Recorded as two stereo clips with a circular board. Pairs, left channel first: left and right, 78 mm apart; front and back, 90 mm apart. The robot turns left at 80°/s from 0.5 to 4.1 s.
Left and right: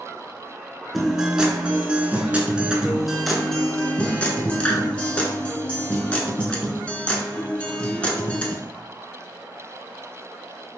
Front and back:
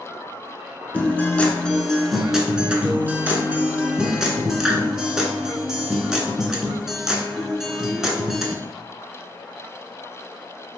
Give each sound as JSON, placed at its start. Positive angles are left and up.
{"t": 0.9, "sound": "a guitar", "azimuth_deg": 5, "distance_m": 0.6}